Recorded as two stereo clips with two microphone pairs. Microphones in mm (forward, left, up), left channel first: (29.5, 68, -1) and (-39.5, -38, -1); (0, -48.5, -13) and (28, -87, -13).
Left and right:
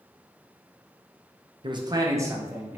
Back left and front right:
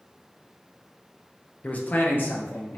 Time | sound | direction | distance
1.6 | a man speaking | 170° right | 0.6 m